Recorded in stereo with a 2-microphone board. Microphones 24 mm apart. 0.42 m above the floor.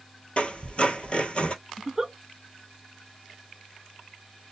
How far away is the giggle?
About 0.5 m.